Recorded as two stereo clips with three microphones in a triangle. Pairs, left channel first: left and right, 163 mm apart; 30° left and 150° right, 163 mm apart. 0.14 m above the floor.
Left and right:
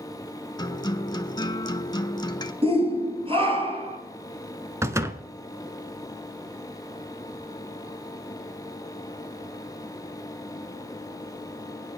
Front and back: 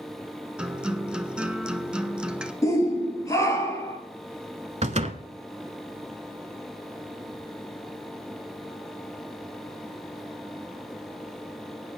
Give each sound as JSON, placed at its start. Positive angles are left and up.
{"t": 0.6, "sound": "a guitar", "azimuth_deg": 130, "distance_m": 0.8}
{"t": 2.6, "sound": "a shout", "azimuth_deg": -40, "distance_m": 3.0}
{"t": 4.8, "sound": "a door slam", "azimuth_deg": -155, "distance_m": 0.9}